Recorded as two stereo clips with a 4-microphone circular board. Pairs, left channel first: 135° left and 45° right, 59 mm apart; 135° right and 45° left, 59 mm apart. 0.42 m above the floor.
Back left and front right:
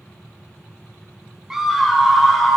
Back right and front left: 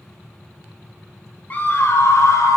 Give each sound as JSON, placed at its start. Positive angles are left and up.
{"t": 1.5, "sound": "a scream", "azimuth_deg": -120, "distance_m": 1.4}